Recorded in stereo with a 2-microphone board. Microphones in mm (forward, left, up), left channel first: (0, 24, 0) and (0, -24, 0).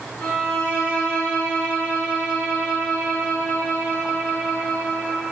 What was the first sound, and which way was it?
A violin, 40° left (ahead or behind).